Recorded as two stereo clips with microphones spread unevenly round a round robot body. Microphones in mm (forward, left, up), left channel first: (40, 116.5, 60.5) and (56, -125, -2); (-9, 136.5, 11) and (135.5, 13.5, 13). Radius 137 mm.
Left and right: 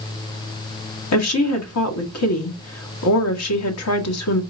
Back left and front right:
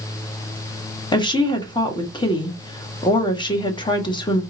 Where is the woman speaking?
80° left, 1.6 m.